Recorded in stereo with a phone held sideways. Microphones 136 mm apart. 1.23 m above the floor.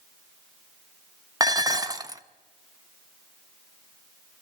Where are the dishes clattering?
25° right (ahead or behind), 0.7 m.